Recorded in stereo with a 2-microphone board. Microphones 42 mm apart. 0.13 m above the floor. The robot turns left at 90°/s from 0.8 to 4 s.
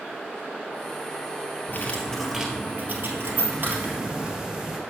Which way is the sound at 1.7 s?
55° left.